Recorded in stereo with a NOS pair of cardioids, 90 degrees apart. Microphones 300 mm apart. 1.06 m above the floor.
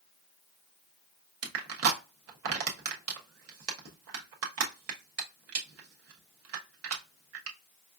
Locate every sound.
1.4 s crushing: 50° right, 1.1 m